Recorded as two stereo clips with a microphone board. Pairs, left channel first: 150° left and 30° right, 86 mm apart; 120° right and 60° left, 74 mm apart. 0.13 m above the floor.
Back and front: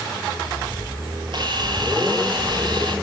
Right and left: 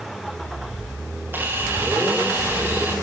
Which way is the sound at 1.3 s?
Straight ahead.